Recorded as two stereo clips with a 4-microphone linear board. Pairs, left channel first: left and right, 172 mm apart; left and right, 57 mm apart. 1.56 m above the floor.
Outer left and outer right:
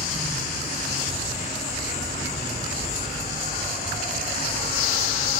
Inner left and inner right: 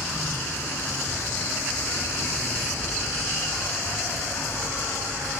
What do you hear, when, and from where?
0.0 s an insect: 45° left (ahead or behind), 8 m